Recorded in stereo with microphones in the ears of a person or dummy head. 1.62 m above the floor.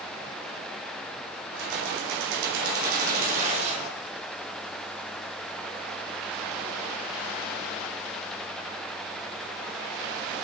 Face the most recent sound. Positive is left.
turn(degrees=-40)  # may be behind; listen again after turning